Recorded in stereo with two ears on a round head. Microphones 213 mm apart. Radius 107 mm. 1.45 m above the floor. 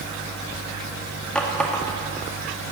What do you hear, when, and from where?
1.4 s a running tap: 5° left (ahead or behind), 2 m